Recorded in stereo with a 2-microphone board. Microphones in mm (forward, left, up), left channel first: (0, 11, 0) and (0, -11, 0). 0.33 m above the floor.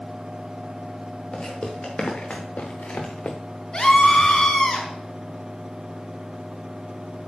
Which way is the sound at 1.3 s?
45° left (ahead or behind).